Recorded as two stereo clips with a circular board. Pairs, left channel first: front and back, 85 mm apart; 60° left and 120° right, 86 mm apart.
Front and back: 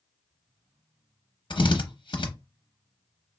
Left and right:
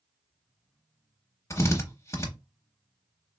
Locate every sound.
1.5 s a drill: 5° left, 0.7 m